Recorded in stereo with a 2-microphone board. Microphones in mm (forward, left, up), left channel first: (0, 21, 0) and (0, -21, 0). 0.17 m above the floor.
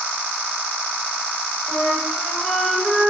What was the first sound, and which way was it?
A flute, 25° left (ahead or behind).